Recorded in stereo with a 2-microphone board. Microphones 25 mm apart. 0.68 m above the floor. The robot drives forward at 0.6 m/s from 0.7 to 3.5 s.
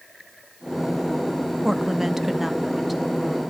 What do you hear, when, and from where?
1.6 s a woman speaking: 15° right (ahead or behind), 0.5 m; by 3.4 s 5° right (ahead or behind), 1.3 m